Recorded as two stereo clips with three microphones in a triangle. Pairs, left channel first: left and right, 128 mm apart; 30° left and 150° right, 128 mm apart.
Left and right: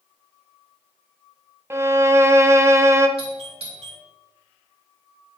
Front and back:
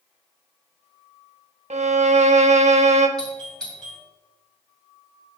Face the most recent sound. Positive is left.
turn(degrees=-55)